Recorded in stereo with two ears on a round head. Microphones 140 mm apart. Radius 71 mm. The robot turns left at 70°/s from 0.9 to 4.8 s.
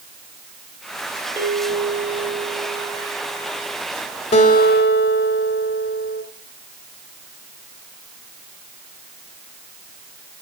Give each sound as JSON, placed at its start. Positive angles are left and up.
{"t": 1.4, "sound": "a bell", "azimuth_deg": -160, "distance_m": 6.0}
{"t": 4.3, "sound": "a guitar", "azimuth_deg": 135, "distance_m": 2.5}